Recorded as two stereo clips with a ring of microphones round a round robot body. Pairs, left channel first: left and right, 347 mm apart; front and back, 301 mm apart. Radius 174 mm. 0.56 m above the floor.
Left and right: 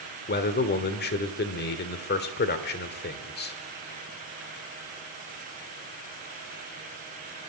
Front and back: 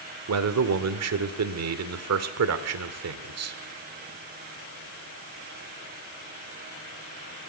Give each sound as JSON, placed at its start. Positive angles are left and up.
{"t": 0.3, "sound": "a man speaking", "azimuth_deg": 150, "distance_m": 1.5}